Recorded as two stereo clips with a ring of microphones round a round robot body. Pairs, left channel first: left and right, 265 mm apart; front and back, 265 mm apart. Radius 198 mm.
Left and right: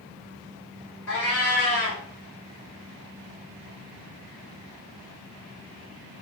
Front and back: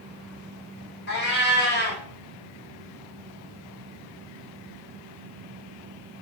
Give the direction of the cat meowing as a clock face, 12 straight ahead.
10 o'clock.